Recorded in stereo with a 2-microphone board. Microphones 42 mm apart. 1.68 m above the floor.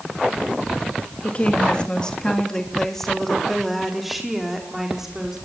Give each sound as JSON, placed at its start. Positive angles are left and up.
{"t": 1.2, "sound": "a woman speaking", "side_deg": 35, "distance_m": 3.0}